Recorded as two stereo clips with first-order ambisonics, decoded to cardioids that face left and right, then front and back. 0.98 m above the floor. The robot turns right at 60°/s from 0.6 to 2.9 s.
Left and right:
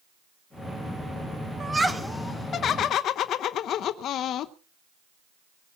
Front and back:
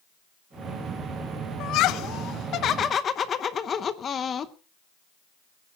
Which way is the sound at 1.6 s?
20° right.